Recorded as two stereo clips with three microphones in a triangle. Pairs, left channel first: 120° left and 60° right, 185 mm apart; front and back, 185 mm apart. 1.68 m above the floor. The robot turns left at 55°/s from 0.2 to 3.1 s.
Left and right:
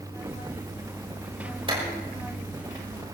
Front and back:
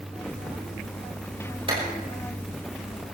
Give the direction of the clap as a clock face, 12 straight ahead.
4 o'clock.